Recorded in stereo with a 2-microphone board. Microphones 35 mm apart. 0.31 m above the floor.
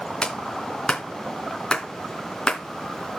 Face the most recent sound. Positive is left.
turn(degrees=20)  # may be behind; listen again after turning